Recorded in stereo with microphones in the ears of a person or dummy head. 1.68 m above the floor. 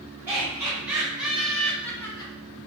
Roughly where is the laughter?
Centre.